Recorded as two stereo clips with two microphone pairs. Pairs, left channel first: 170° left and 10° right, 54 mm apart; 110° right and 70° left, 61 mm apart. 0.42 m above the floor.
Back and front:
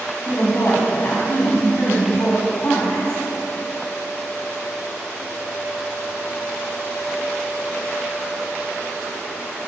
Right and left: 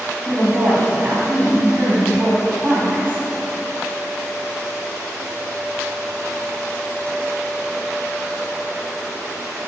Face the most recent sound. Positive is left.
turn(degrees=130)